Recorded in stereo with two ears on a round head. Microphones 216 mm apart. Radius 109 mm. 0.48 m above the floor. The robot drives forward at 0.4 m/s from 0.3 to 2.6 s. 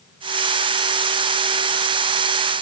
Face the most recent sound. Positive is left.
No sound to turn to.